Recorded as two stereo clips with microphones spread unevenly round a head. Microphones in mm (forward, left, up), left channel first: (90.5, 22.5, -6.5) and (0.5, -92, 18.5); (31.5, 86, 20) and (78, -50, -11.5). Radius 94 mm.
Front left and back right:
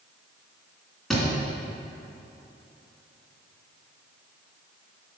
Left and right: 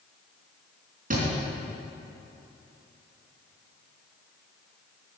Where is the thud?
40° right, 3 m.